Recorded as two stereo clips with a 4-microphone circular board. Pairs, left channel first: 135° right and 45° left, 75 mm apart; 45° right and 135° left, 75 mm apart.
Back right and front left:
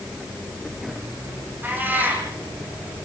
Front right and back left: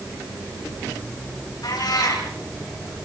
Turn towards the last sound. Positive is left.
turn(degrees=-20)